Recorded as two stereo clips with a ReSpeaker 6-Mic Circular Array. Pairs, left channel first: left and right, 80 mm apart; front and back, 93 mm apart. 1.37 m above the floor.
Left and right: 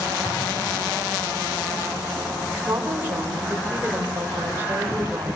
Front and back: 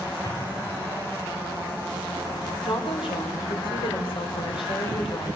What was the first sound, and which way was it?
An explosion, 45° left.